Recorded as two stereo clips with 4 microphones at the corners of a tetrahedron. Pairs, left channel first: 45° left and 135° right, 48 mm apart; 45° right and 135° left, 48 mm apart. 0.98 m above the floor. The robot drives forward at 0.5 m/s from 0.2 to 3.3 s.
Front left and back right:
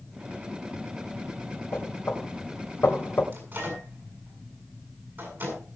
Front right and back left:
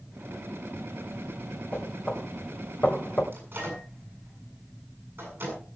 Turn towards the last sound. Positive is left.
turn(degrees=180)